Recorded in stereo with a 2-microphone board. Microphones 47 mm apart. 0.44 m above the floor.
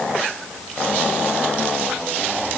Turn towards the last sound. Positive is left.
No sound to turn to.